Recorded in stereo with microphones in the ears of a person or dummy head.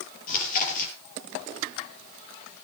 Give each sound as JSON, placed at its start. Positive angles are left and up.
{"t": 0.3, "sound": "chewing", "side_deg": 55, "distance_m": 5.0}